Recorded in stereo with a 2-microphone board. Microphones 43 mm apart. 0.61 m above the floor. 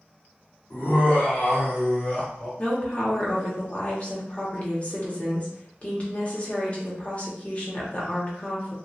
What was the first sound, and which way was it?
Laughter, 50° left (ahead or behind).